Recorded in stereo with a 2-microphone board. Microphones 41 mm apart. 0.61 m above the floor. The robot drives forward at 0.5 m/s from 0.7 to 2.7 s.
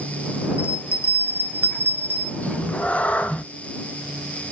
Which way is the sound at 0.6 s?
75° left (ahead or behind).